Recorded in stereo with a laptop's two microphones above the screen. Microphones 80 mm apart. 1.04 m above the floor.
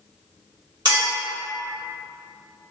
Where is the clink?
60° right (ahead or behind), 1.7 m.